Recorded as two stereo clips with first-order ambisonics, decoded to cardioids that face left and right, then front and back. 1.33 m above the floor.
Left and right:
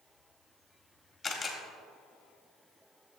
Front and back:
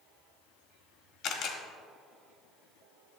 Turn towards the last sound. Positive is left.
turn(degrees=15)